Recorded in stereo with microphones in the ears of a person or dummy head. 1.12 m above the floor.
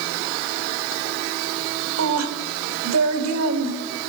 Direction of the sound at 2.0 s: 80° right.